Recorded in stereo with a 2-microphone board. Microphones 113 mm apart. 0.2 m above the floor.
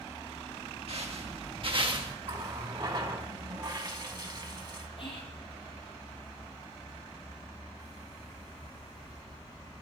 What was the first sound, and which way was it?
Footsteps, 60° right (ahead or behind).